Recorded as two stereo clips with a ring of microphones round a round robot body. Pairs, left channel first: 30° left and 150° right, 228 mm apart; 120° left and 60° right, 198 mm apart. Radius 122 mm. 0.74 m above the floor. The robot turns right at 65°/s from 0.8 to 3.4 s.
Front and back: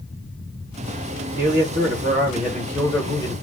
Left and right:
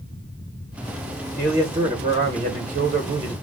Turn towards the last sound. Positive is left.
turn(degrees=-5)